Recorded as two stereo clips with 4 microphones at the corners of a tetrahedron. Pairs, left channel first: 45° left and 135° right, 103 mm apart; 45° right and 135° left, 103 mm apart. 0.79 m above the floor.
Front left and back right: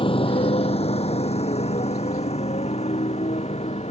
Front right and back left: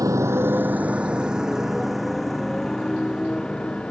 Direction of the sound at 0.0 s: 75° left.